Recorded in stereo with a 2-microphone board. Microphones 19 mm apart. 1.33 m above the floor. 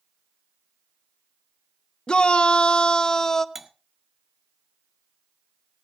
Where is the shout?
60° left (ahead or behind), 0.8 m; by 3.5 s 25° left (ahead or behind), 0.8 m.